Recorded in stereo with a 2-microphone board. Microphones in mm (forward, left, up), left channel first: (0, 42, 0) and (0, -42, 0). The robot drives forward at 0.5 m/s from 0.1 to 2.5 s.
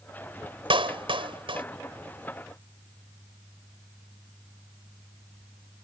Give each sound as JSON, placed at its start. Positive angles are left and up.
{"t": 0.7, "sound": "a clap", "side_deg": -85}